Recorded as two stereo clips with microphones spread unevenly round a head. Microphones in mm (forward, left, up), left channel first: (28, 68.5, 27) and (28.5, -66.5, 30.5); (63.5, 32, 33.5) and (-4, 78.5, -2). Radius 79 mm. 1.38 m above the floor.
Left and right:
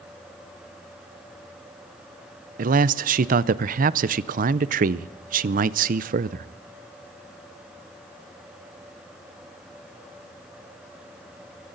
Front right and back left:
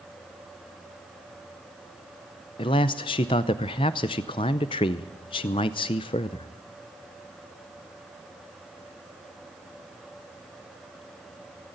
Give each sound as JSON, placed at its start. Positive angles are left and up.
{"t": 2.6, "sound": "a man speaking", "azimuth_deg": -65, "distance_m": 0.5}